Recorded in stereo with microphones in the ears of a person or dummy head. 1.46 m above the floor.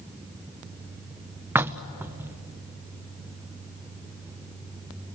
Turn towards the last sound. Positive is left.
turn(degrees=-15)  # may be behind; listen again after turning